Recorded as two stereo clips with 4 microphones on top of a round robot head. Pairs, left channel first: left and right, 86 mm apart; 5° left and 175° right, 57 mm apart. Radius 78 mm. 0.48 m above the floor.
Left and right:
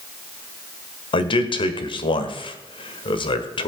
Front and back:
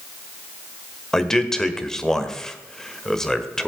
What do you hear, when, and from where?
1.1 s a man speaking: 85° left, 1.7 m